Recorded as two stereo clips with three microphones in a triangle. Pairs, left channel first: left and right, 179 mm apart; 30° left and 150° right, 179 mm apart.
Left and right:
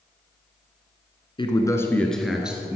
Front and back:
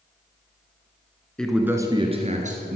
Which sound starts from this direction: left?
A man speaking, at 1.4 s.